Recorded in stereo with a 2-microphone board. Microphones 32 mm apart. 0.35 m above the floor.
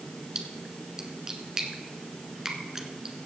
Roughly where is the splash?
Centre.